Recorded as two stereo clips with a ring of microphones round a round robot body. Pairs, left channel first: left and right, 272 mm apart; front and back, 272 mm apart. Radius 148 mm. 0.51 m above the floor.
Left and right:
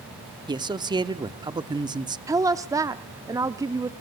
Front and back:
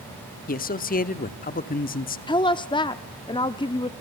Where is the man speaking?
25° right, 1.0 m.